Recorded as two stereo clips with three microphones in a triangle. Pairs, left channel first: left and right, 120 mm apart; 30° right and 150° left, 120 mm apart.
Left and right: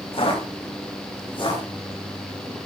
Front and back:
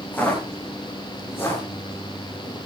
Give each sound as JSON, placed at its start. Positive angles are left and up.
{"t": 0.1, "sound": "footsteps", "azimuth_deg": 45, "distance_m": 7.5}